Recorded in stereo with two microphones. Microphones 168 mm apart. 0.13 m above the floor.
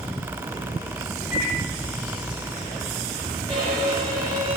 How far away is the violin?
About 2.5 m.